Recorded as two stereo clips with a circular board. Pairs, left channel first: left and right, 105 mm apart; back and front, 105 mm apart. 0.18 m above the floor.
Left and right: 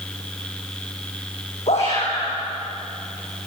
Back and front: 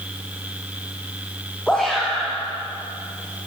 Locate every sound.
1.7 s a shout: 100° left, 9.5 m